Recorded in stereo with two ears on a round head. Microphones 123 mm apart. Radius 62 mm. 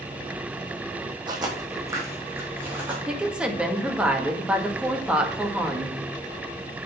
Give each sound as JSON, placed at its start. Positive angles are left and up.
{"t": 1.3, "sound": "footsteps", "side_deg": -35, "distance_m": 2.0}
{"t": 3.1, "sound": "a woman speaking", "side_deg": -10, "distance_m": 1.5}